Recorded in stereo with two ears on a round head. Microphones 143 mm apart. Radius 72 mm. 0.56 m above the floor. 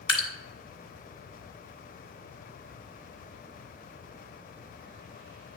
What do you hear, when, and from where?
0.1 s dripping: 30° left (ahead or behind), 1.6 m